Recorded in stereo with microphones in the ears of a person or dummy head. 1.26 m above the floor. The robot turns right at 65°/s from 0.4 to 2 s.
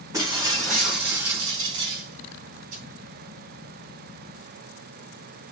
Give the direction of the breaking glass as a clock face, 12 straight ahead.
5 o'clock.